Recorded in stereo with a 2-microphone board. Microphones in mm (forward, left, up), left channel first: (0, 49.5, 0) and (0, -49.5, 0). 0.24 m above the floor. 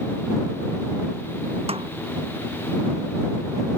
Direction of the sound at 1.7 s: 85° right.